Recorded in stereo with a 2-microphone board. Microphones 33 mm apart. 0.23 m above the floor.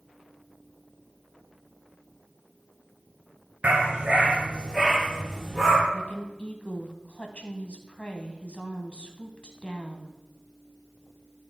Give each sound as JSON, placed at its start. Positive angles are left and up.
{"t": 3.6, "sound": "a dog barking", "side_deg": -45, "distance_m": 1.3}
{"t": 5.9, "sound": "a woman speaking", "side_deg": 40, "distance_m": 1.3}